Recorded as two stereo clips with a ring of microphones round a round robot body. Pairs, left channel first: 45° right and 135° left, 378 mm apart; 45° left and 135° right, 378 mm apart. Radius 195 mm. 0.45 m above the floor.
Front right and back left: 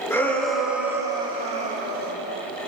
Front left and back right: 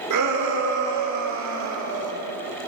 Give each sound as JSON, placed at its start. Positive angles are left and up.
{"t": 0.1, "sound": "a shout", "azimuth_deg": -125, "distance_m": 1.9}